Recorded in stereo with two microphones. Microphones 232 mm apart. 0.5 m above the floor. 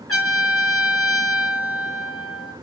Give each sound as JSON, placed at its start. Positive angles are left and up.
{"t": 0.1, "sound": "a trumpet", "side_deg": 80, "distance_m": 5.5}